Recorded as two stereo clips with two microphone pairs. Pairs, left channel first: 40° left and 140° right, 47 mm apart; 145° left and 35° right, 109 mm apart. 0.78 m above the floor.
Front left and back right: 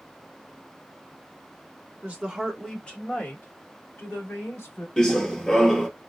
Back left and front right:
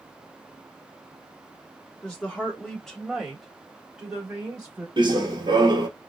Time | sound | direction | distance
2.0 | a woman speaking | 160° right | 1.1 m
5.0 | running footsteps | 35° right | 1.0 m